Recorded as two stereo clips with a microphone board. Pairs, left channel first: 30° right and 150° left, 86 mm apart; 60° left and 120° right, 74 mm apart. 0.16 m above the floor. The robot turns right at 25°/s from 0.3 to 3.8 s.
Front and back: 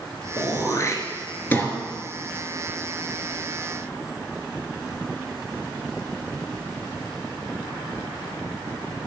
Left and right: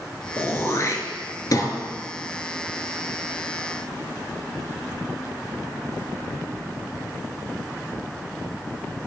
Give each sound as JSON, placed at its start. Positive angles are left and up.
{"t": 0.4, "sound": "throat clearing", "azimuth_deg": 5, "distance_m": 1.1}